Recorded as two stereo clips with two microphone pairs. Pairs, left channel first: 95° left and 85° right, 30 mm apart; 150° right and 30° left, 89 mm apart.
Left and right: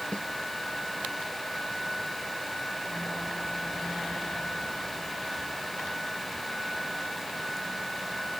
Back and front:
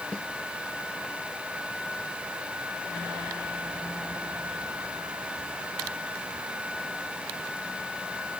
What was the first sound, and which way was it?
A snare drum, 130° left.